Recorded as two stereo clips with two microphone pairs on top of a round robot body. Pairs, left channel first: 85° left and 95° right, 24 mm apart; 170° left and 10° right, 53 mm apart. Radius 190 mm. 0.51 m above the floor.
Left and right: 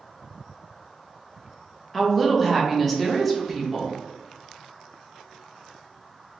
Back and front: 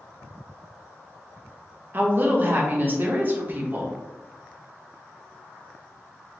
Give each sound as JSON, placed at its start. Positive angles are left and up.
{"t": 1.9, "sound": "a woman speaking", "azimuth_deg": 10, "distance_m": 1.1}